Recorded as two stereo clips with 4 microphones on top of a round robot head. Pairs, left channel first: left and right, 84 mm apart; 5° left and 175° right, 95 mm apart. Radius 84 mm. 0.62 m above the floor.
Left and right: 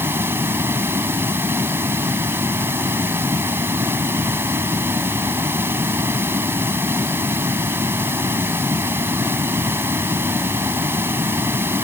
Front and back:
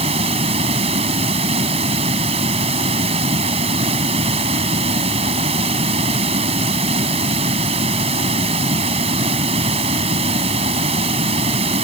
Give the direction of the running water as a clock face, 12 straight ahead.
5 o'clock.